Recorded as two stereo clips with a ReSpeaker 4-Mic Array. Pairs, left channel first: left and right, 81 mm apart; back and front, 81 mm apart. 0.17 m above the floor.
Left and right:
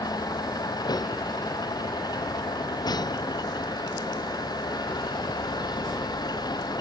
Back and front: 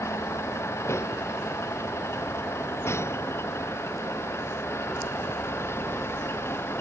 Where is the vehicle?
125° left; by 6.8 s 120° left.